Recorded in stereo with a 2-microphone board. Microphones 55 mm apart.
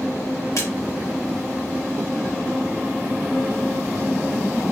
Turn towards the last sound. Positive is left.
turn(degrees=65)  # may be behind; listen again after turning